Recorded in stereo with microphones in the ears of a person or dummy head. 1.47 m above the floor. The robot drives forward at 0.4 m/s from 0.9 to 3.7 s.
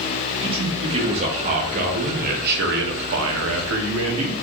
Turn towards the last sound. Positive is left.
turn(degrees=-80)